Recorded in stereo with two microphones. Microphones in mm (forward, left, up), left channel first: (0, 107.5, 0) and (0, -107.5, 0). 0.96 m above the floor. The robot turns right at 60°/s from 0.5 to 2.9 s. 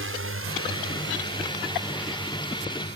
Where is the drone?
70° right (ahead or behind); by 3.0 s 50° left (ahead or behind).